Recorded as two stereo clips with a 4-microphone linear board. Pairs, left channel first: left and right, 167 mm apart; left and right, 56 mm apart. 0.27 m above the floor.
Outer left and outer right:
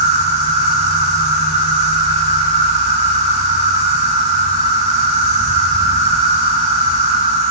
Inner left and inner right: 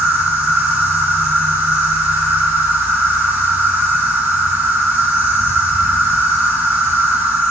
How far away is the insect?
About 3.5 m.